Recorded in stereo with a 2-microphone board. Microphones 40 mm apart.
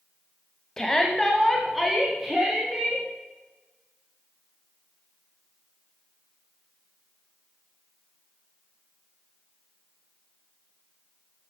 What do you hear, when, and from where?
0.8 s a shout: 15° left (ahead or behind), 1.0 m; by 3.0 s 10° right (ahead or behind), 2 m